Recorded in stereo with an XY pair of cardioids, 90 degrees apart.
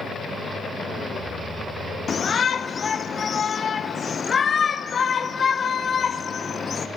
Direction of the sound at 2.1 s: 40° left.